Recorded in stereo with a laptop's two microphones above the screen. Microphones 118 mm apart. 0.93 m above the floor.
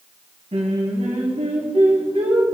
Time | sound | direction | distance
0.5 | singing | 65° right (ahead or behind) | 2 m